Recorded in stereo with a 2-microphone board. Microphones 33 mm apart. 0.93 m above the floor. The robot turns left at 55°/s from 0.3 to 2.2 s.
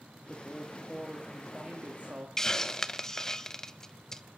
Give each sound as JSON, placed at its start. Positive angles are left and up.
{"t": 0.3, "sound": "a woman speaking", "azimuth_deg": 35, "distance_m": 1.6}
{"t": 2.4, "sound": "a hiss", "side_deg": 15, "distance_m": 0.5}